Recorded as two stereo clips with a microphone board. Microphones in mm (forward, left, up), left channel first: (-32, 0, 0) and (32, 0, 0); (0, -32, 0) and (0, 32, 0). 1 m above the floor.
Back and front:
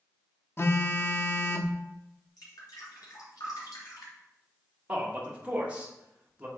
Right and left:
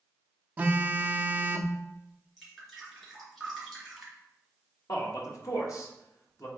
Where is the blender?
I don't hear a blender.